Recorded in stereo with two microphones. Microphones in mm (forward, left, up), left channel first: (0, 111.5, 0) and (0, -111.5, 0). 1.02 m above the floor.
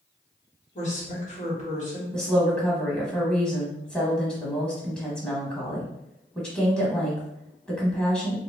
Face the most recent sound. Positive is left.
turn(degrees=0)  # may be behind; listen again after turning